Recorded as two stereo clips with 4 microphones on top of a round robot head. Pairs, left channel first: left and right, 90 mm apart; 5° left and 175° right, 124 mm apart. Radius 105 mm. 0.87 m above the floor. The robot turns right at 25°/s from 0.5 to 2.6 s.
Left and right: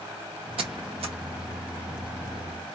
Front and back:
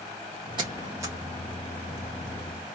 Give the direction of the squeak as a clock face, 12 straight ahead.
4 o'clock.